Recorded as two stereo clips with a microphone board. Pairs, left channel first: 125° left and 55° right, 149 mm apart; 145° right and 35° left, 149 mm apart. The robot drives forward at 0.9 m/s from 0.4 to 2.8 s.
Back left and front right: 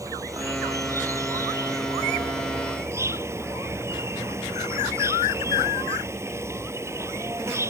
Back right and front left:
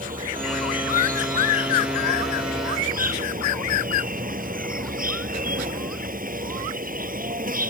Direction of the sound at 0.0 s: 15° left.